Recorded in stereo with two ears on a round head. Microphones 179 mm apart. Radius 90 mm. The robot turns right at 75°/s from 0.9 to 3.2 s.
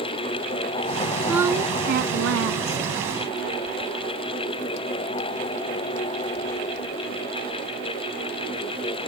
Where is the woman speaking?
175° right; by 2.9 s 55° right.